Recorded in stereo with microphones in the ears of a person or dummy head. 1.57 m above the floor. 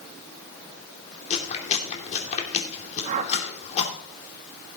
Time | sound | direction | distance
1.3 | chewing | 40° left (ahead or behind) | 2.5 m
3.0 | a whoosh | 40° right (ahead or behind) | 1.4 m